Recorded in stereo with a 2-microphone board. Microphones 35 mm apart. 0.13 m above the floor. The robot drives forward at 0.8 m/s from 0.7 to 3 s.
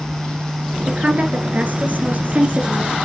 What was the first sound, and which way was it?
A woman speaking, 45° right (ahead or behind).